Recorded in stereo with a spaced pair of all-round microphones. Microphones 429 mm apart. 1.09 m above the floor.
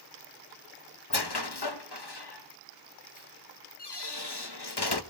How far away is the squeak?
About 1.1 m.